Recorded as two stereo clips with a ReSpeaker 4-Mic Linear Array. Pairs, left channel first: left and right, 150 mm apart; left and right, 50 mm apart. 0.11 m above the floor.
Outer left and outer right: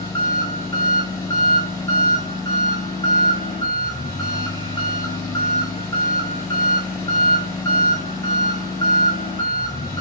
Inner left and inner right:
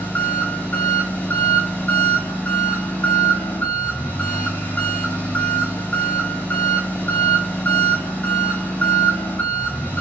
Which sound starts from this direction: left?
An engine running, at 0.0 s.